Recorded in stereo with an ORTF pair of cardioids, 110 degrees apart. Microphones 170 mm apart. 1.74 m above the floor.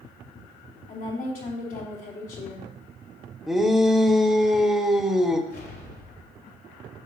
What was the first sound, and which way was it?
A woman speaking, 55° left.